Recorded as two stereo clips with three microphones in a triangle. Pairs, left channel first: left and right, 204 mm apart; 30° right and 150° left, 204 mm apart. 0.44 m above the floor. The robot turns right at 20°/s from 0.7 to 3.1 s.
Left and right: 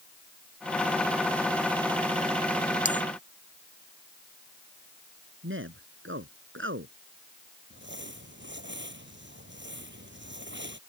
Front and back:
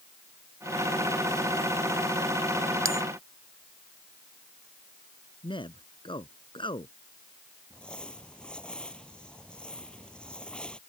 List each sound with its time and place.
2.9 s a bell: 140° left; by 3.0 s 145° left
5.4 s a man speaking: 95° right
7.7 s crumpling: 115° right